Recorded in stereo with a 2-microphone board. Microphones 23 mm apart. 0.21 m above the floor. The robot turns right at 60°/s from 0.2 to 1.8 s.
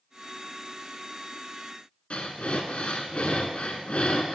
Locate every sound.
2.1 s breathing: 60° left (ahead or behind), 0.7 m